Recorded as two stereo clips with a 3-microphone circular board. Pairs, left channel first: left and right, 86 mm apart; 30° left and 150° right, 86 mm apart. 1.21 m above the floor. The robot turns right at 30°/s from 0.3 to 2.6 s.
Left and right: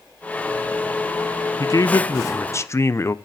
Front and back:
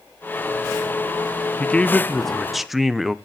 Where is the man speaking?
95° left, 0.6 m; by 3.1 s 125° left, 0.6 m.